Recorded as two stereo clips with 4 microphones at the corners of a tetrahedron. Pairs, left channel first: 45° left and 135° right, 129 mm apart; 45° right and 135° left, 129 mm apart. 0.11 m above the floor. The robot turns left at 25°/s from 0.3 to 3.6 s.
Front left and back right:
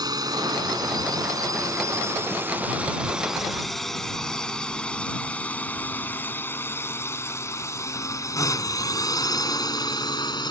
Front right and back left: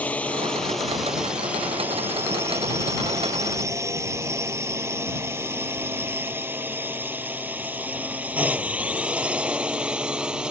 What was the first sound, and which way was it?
A drone, 115° right.